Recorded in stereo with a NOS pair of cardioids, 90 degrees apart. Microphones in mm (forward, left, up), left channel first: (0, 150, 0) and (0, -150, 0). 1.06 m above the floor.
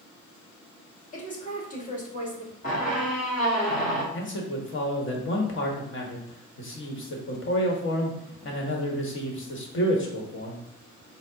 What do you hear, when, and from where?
1.1 s a woman speaking: 25° left, 1.7 m
2.6 s a squeak: 25° left, 1.5 m
4.1 s a man speaking: 40° left, 1.3 m